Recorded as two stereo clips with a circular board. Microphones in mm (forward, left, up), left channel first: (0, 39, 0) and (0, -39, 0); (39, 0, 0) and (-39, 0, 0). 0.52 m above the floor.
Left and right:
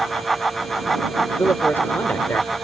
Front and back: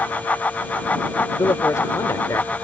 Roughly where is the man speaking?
Ahead left.